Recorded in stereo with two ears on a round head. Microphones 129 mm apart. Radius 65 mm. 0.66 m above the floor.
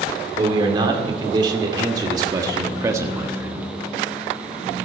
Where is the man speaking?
35° right (ahead or behind), 2.5 m; by 3.7 s 10° right (ahead or behind), 1.2 m.